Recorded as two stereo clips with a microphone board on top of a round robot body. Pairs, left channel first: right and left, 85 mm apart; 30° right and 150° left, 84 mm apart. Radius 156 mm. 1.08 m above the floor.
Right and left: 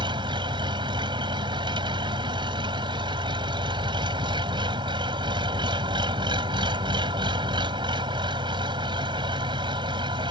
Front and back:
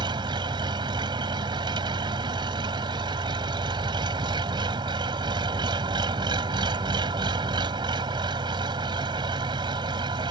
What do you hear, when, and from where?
0.0 s an engine running: 120° left